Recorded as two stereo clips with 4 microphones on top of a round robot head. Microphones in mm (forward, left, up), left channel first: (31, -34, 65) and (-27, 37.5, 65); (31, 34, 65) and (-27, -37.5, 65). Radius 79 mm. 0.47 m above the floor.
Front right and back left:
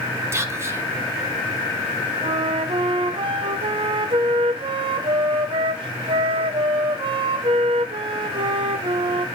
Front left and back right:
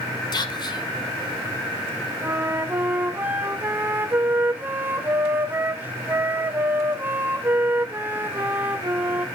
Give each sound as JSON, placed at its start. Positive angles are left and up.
{"t": 0.3, "sound": "whispering", "azimuth_deg": 75, "distance_m": 1.6}
{"t": 2.2, "sound": "a flute", "azimuth_deg": 160, "distance_m": 0.8}